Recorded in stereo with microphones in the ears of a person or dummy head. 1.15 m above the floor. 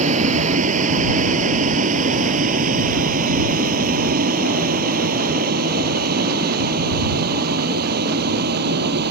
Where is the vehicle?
45° right (ahead or behind); by 9.1 s 55° right (ahead or behind).